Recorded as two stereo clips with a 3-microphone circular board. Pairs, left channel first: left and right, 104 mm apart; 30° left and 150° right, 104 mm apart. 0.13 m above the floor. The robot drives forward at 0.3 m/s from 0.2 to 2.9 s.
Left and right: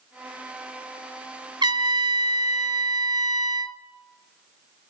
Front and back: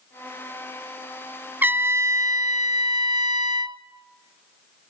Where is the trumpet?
85° right, 0.6 m; by 3.8 s 125° right, 0.7 m.